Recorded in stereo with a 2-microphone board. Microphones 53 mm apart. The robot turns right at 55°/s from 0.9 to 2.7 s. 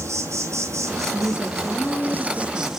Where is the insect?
110° right, 1.1 m; by 2.8 s 10° right, 1.1 m.